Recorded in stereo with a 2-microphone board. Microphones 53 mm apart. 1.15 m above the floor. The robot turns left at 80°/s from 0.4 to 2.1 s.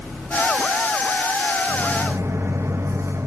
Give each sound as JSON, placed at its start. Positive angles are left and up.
{"t": 1.7, "sound": "a microwave", "azimuth_deg": -25, "distance_m": 0.9}